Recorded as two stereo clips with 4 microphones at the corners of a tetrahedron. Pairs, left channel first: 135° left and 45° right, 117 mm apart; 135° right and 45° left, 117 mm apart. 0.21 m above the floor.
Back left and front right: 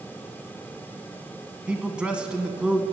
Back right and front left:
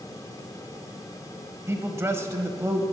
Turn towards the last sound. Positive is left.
turn(degrees=20)